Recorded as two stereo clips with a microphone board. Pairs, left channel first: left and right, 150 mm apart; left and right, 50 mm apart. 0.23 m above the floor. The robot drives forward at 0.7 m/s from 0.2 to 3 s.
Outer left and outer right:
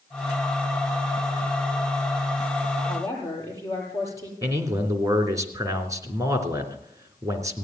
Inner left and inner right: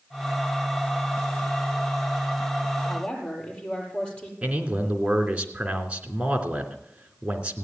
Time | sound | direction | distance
2.9 | a woman speaking | 20° left (ahead or behind) | 7.5 m
4.4 | a man speaking | 20° right (ahead or behind) | 3 m